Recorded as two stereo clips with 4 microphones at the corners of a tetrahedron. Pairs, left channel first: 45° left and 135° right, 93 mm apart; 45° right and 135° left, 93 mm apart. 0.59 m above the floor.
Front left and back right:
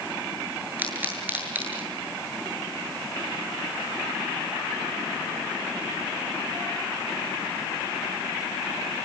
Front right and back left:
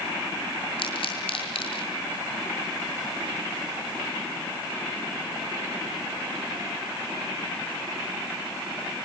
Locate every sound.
0.8 s a pop: 65° right, 8 m